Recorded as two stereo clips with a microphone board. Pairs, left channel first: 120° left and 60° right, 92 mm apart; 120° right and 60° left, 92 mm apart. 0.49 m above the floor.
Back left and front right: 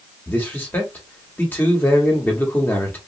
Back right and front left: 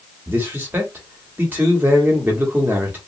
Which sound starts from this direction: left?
A man speaking, at 0.3 s.